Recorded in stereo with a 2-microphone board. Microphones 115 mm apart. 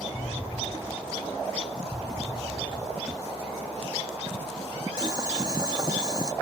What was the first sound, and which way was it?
An explosion, 5° left (ahead or behind).